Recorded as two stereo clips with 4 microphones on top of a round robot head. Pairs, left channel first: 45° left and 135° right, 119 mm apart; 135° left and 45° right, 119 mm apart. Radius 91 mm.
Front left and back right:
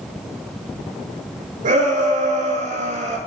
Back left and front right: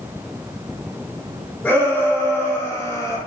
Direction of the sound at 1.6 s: 145° right.